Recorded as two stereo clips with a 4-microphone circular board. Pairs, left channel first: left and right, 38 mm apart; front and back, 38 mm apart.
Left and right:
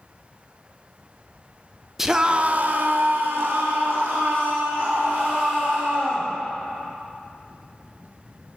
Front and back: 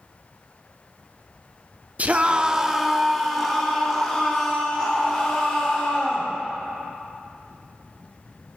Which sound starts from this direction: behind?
A scream, at 2.0 s.